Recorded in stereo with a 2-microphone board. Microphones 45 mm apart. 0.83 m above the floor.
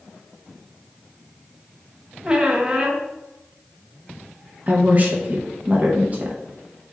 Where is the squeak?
20° right (ahead or behind), 0.6 m.